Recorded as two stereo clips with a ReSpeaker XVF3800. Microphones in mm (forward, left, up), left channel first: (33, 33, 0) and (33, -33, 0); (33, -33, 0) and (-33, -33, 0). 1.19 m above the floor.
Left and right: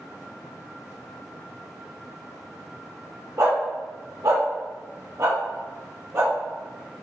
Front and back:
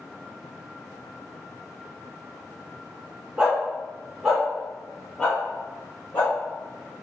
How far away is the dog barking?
About 1.6 m.